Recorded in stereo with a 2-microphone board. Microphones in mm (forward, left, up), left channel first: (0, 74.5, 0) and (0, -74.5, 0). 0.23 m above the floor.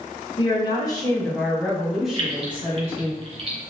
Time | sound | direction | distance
0.4 | a woman speaking | 35° left (ahead or behind) | 1.2 m
2.1 | keys jangling | 45° right (ahead or behind) | 2.0 m